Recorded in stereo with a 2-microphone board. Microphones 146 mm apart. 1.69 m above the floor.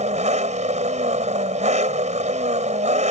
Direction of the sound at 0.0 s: 55° right (ahead or behind).